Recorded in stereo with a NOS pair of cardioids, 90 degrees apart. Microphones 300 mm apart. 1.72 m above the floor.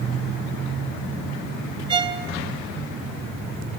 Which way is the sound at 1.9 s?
15° right.